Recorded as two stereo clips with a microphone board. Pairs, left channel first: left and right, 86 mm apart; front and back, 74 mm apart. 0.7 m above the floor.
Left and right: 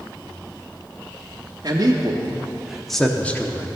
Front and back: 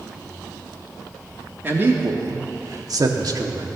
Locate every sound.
1.6 s a man speaking: 120° right, 1.1 m; by 3.7 s 150° left, 1.2 m